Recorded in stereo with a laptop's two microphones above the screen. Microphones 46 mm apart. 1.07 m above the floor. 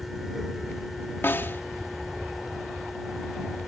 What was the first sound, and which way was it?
A fan, 5° right (ahead or behind).